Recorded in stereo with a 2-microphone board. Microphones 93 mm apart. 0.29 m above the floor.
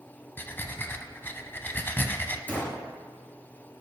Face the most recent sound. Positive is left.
turn(degrees=20)  # may be behind; listen again after turning